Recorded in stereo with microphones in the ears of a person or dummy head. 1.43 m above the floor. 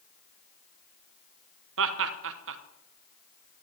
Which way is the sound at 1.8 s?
70° right (ahead or behind).